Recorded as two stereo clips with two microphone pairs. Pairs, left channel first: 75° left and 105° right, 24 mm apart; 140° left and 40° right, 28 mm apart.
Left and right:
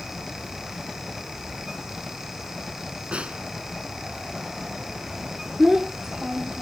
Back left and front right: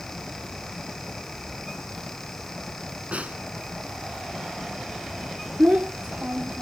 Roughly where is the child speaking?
Ahead right.